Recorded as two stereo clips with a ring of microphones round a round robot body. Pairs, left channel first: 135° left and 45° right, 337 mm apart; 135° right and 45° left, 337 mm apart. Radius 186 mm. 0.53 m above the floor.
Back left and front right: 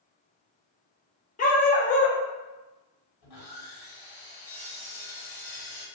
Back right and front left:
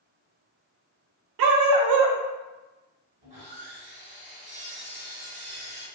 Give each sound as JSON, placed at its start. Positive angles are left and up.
{"t": 1.4, "sound": "a dog barking", "azimuth_deg": 70, "distance_m": 0.5}
{"t": 3.2, "sound": "sawing", "azimuth_deg": 115, "distance_m": 1.2}